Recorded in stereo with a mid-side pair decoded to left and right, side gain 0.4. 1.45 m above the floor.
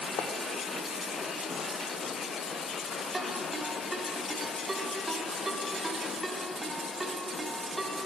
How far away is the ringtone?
About 4 m.